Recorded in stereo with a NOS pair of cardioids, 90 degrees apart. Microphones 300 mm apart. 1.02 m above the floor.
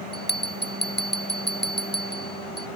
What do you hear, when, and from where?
0.1 s a bell: 35° left